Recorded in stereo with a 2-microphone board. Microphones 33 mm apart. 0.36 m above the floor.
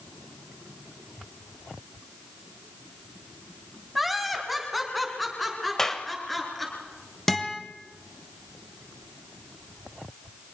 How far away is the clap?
About 1.2 m.